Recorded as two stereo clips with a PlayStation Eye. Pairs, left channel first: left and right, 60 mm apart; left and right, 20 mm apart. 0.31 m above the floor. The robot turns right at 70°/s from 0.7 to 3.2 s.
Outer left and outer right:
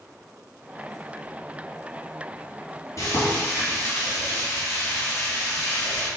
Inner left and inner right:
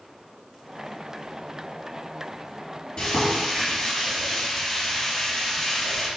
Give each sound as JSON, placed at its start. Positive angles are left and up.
{"t": 3.0, "sound": "frying", "side_deg": 55, "distance_m": 1.7}